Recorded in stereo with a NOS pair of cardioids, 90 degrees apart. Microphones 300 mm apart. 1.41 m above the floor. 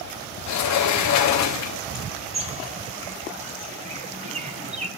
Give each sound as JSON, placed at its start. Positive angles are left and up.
{"t": 0.5, "sound": "a sliding door", "azimuth_deg": 65, "distance_m": 1.8}
{"t": 2.3, "sound": "a bird", "azimuth_deg": -20, "distance_m": 3.5}